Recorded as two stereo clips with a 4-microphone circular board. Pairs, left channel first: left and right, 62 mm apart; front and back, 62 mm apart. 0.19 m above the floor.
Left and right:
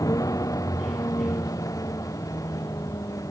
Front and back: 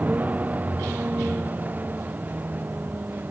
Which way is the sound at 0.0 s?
115° left.